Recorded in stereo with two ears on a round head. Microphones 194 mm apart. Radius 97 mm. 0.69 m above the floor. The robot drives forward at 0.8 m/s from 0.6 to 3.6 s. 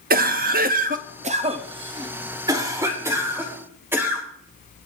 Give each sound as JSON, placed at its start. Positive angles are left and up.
{"t": 0.1, "sound": "a cough", "side_deg": -40, "distance_m": 0.8}